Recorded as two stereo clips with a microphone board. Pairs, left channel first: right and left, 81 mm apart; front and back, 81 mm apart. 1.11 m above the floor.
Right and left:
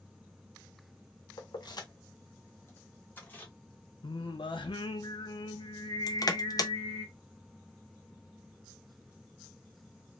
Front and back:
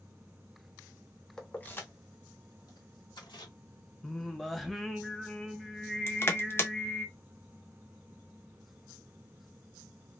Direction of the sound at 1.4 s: 80° right.